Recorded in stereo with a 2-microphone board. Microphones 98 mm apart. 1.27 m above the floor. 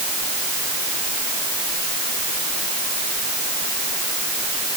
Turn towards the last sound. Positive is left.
No sound to turn to.